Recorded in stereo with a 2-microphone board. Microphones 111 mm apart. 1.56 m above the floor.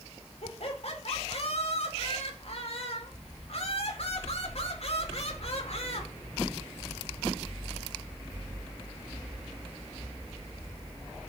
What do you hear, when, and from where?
0.4 s laughter: 65° left (ahead or behind), 4.5 m